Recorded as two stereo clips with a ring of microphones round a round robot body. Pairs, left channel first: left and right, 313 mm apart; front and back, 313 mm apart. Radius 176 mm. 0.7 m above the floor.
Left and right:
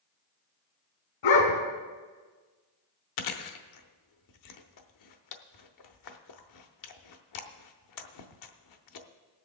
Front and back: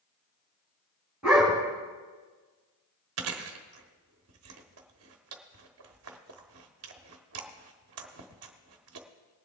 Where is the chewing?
130° left, 0.8 m.